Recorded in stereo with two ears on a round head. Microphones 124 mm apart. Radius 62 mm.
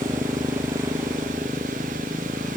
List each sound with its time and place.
0.0 s a motorcycle: 20° right (ahead or behind)